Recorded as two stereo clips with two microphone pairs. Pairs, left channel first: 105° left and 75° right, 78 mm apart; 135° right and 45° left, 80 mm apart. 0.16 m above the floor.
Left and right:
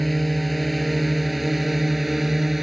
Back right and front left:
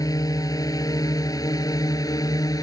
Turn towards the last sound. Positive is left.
turn(degrees=-160)